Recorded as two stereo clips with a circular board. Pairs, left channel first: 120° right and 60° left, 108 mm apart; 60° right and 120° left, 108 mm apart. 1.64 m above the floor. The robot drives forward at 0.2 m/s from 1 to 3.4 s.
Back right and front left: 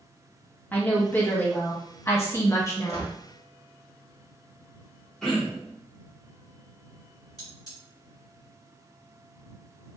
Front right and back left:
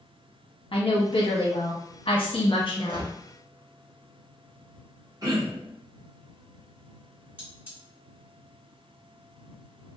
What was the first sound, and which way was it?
A woman speaking, 45° right.